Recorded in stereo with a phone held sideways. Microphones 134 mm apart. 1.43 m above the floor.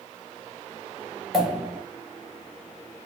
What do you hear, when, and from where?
1.3 s a pop: 5° right (ahead or behind), 1.4 m